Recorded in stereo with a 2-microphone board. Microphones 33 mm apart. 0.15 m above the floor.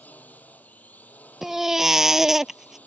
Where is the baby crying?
10° right (ahead or behind).